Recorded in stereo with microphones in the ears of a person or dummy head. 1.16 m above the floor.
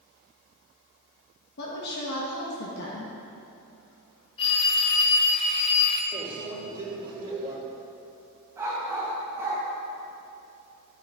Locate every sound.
1.6 s a woman speaking: 70° left (ahead or behind), 1.4 m
4.4 s a phone ringing: 30° left (ahead or behind), 0.9 m
6.1 s a microwave: 25° right (ahead or behind), 2.5 m
8.6 s a dog barking: 15° right (ahead or behind), 2.5 m